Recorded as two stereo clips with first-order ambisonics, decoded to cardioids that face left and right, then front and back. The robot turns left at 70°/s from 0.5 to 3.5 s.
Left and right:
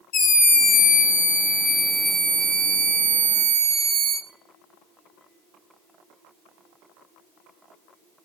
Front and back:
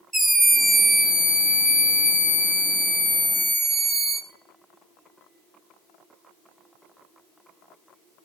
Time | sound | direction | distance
0.1 | a scream | 100° left | 1.6 m